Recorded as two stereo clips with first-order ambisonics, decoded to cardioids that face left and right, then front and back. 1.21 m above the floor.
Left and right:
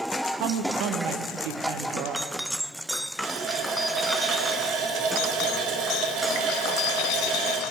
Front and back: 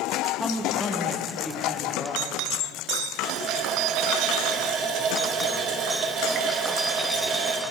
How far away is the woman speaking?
About 1.0 m.